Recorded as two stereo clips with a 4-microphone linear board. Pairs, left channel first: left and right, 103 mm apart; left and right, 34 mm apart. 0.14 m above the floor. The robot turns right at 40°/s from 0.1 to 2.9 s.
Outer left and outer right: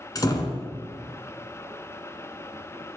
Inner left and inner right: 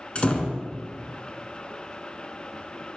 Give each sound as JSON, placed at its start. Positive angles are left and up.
{"t": 0.1, "sound": "a door slam", "side_deg": 40, "distance_m": 0.9}